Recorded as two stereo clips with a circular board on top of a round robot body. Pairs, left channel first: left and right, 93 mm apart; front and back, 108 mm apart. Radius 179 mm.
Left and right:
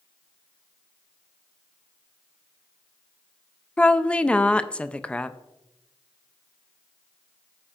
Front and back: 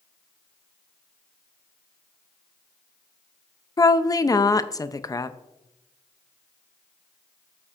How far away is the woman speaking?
About 0.6 m.